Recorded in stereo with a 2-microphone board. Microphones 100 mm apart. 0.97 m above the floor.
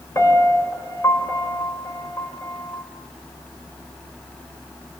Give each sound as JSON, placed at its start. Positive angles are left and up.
{"t": 0.1, "sound": "a piano", "side_deg": 30, "distance_m": 3.5}